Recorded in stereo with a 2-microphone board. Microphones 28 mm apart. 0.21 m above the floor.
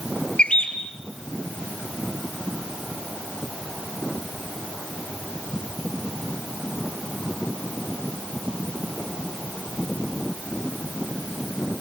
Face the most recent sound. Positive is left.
turn(degrees=45)  # may be behind; listen again after turning